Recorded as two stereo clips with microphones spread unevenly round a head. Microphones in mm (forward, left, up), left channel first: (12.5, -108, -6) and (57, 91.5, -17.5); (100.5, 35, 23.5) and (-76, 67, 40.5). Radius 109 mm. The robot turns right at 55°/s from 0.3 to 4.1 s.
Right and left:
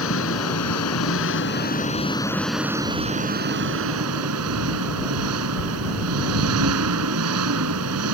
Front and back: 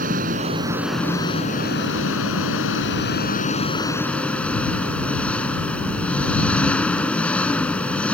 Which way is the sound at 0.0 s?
135° right.